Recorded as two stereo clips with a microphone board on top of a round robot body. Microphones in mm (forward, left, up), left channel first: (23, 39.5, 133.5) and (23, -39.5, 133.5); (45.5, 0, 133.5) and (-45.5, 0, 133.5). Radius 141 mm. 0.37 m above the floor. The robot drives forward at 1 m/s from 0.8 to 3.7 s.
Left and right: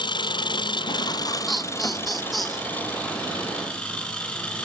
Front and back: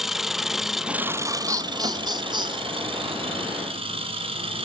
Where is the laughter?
Straight behind, 1.7 m.